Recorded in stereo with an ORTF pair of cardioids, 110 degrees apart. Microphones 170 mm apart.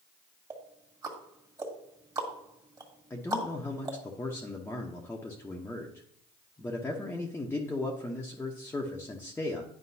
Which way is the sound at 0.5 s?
20° right.